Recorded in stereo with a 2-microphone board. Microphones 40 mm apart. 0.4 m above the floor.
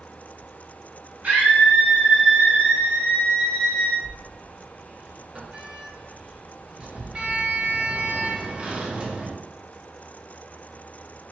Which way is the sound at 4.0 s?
30° right (ahead or behind).